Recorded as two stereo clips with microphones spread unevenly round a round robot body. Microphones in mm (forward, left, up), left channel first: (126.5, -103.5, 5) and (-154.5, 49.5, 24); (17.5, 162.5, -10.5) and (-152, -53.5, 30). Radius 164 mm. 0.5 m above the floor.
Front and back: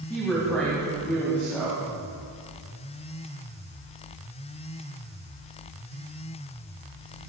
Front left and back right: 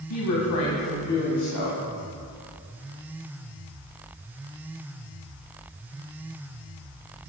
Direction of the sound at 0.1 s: 60° left.